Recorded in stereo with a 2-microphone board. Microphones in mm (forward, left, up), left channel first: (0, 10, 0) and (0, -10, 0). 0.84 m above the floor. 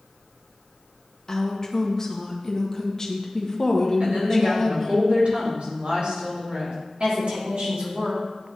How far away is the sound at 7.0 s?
About 2 m.